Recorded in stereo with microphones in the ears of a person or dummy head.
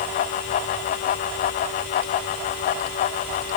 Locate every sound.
Only background noise.